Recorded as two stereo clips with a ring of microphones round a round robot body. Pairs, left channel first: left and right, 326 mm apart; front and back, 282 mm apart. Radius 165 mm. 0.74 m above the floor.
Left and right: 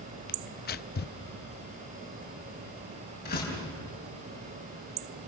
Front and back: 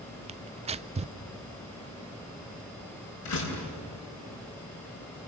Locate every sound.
0.3 s tearing paper: 125° left, 0.5 m
3.2 s a door slam: 25° left, 5.5 m